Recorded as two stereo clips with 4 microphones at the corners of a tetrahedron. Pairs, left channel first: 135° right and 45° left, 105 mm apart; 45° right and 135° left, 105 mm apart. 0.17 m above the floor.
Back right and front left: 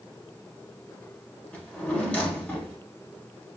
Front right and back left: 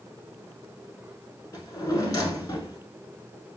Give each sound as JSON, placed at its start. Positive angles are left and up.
{"t": 1.5, "sound": "a drawer", "azimuth_deg": -65, "distance_m": 0.8}